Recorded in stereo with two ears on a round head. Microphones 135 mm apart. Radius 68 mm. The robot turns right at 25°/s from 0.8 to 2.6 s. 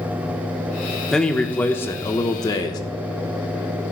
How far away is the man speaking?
About 1.0 m.